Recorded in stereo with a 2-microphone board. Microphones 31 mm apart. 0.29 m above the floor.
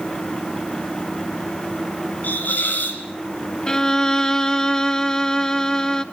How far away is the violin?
About 1.1 m.